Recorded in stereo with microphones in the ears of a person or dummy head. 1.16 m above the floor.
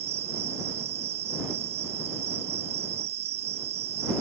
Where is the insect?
35° right (ahead or behind).